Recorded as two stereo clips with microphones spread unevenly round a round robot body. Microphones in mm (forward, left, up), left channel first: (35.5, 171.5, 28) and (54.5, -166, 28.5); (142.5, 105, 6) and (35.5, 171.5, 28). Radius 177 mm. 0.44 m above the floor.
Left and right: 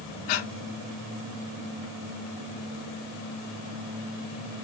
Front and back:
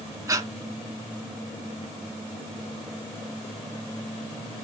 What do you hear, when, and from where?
0.3 s breathing: 85° left, 1.4 m